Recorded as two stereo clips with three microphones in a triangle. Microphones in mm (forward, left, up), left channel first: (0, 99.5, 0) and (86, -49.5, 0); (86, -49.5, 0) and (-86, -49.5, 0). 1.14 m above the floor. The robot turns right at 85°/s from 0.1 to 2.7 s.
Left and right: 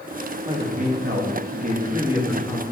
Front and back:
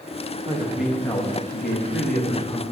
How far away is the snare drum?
No snare drum in this recording.